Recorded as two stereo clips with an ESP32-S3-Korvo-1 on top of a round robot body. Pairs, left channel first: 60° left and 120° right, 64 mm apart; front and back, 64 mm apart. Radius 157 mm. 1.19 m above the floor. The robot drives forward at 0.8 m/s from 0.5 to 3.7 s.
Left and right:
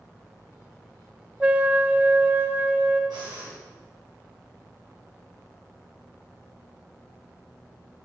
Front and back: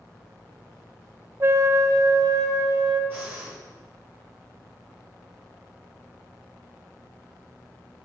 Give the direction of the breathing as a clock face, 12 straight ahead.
4 o'clock.